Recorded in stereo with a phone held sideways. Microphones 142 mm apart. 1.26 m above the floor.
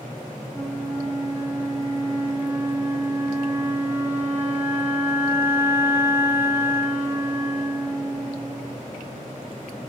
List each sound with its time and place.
0.5 s a flute: 10° right (ahead or behind), 2 m